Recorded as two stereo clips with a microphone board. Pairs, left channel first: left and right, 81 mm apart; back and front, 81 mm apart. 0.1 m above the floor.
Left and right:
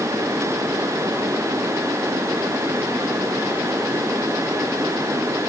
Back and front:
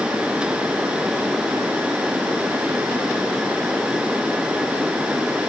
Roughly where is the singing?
I don't hear singing.